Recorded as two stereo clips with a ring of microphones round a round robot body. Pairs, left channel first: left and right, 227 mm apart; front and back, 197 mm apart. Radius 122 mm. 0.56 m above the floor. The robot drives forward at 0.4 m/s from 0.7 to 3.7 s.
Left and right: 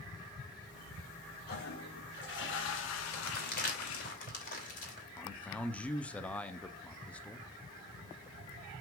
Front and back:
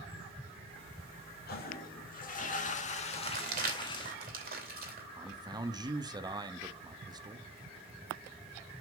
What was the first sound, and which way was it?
A toilet flushing, 40° left.